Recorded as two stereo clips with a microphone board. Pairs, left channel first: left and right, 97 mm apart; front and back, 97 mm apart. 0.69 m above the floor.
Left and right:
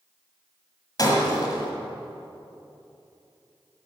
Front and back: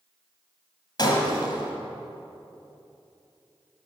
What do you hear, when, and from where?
1.0 s breaking glass: 45° left, 2 m